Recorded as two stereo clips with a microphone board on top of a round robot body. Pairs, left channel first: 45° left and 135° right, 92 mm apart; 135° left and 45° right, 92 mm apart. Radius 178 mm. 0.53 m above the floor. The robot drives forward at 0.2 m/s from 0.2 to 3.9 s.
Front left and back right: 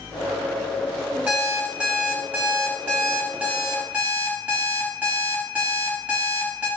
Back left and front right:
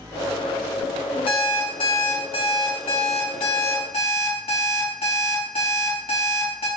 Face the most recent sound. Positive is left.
turn(degrees=150)